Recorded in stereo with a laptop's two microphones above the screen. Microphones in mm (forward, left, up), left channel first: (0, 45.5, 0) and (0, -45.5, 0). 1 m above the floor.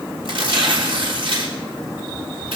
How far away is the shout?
No shout in this recording.